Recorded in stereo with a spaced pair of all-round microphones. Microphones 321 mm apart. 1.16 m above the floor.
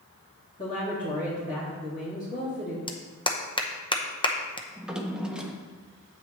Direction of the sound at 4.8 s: Centre (ahead or behind).